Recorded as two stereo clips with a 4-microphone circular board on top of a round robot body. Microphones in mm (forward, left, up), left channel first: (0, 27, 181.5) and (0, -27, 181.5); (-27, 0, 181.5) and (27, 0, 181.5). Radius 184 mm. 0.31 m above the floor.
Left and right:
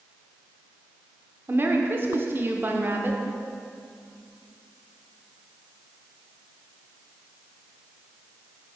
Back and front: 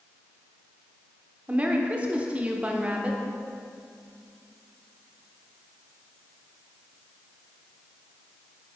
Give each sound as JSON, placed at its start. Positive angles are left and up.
{"t": 1.5, "sound": "a woman speaking", "azimuth_deg": -55, "distance_m": 1.2}